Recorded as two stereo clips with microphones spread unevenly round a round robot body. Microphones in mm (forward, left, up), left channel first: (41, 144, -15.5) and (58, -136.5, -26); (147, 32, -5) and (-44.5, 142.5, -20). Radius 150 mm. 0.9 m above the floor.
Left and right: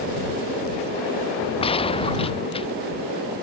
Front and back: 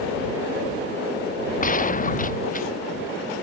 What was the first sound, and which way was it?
A gunshot, 20° left.